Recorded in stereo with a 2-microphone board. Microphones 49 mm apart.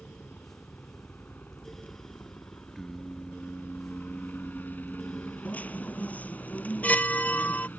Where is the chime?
30° left (ahead or behind).